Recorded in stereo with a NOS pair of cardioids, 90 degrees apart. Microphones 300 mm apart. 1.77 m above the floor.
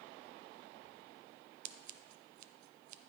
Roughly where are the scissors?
Ahead right.